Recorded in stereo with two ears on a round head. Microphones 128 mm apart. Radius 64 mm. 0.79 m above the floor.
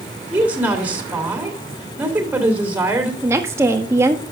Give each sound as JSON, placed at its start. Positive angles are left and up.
{"t": 0.3, "sound": "a woman speaking", "side_deg": -10, "distance_m": 3.0}
{"t": 3.2, "sound": "a woman speaking", "side_deg": -20, "distance_m": 1.4}